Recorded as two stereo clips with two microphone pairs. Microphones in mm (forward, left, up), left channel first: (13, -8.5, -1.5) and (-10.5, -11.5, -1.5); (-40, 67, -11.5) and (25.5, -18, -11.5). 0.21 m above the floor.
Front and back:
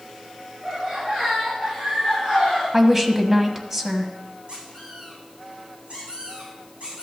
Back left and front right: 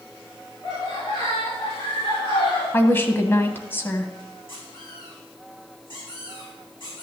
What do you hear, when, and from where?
0.6 s laughter: 140° left, 5.5 m; by 2.6 s 145° left, 6.5 m
2.7 s a woman speaking: 130° left, 1.0 m
4.5 s a squeak: 160° left, 6 m